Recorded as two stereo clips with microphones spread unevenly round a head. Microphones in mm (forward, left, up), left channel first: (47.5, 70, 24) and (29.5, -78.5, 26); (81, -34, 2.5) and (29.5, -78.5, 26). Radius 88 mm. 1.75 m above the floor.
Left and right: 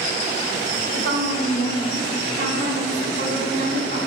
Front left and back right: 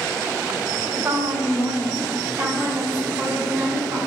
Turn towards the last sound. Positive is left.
turn(degrees=-65)